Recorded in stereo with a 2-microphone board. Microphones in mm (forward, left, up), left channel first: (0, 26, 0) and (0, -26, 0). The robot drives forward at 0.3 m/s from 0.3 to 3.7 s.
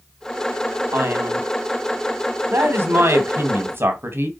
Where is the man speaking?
50° right (ahead or behind), 2 m.